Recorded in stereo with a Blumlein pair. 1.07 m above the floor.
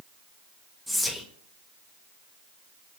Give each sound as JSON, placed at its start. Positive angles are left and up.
{"t": 0.9, "sound": "whispering", "azimuth_deg": 0, "distance_m": 0.5}